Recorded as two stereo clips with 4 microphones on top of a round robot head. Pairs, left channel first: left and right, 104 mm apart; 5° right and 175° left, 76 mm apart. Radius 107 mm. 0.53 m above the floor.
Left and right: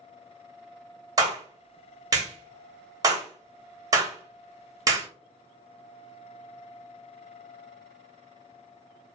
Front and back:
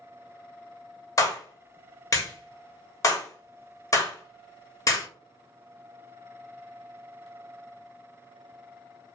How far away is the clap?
About 1.4 m.